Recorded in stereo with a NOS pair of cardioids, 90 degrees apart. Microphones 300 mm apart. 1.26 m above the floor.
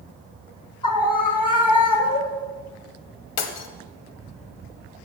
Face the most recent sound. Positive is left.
turn(degrees=65)